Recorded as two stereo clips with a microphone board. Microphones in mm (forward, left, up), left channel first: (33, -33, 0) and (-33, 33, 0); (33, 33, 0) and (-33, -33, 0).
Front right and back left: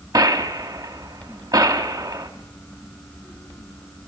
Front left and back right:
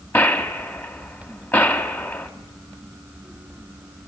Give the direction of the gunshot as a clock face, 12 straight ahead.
9 o'clock.